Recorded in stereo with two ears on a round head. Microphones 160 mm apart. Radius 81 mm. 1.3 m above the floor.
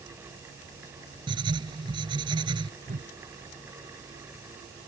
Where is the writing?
25° right (ahead or behind).